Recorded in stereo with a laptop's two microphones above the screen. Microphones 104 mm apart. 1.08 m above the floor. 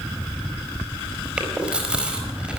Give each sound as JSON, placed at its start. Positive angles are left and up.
{"t": 1.4, "sound": "chewing", "side_deg": -10, "distance_m": 4.5}